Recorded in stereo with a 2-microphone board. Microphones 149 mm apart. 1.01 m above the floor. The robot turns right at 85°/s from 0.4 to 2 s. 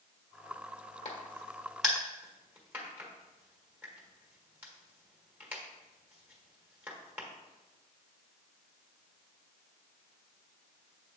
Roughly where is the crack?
Left.